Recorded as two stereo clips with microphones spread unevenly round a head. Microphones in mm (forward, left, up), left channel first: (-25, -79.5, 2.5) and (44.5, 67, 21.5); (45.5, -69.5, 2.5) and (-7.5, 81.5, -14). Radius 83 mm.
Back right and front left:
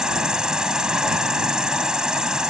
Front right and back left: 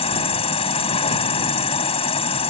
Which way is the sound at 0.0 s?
20° right.